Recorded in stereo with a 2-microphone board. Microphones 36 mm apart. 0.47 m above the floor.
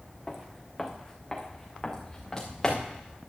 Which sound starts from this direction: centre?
Footsteps, at 0.3 s.